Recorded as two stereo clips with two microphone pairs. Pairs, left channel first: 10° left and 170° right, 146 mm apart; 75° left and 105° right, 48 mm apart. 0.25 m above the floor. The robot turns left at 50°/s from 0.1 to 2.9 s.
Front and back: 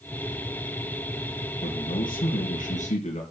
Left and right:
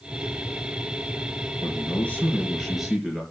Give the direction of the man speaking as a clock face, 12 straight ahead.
11 o'clock.